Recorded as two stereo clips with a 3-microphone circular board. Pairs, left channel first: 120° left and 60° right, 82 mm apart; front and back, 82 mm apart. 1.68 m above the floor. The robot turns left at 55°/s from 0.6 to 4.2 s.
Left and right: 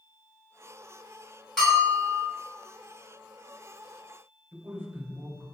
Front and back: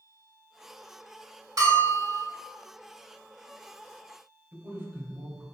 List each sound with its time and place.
1.6 s a bell: 155° right, 1.7 m; by 2.2 s 170° left, 1.7 m
4.5 s a man speaking: 115° right, 0.7 m